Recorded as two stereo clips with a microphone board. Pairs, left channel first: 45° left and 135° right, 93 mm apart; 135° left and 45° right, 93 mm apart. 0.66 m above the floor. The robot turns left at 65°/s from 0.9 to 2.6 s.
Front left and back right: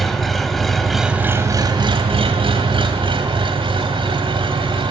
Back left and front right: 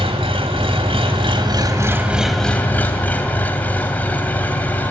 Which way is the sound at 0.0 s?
40° right.